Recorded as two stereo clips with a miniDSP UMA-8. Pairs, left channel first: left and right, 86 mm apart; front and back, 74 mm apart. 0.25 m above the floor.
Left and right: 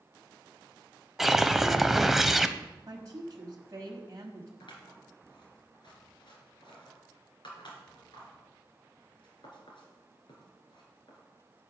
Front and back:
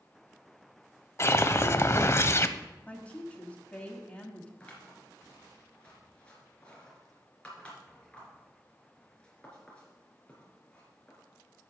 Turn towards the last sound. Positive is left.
turn(degrees=75)